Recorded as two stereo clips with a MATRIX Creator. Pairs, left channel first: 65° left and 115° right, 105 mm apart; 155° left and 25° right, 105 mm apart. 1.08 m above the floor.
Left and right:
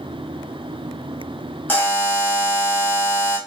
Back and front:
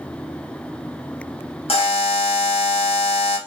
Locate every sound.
1.7 s a buzzer: 140° left, 1.3 m